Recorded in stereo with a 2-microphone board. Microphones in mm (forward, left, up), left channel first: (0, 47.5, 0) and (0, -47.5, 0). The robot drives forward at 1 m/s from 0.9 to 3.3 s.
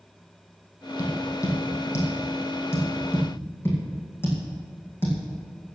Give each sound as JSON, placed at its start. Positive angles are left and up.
{"t": 1.0, "sound": "tapping", "side_deg": 35, "distance_m": 4.0}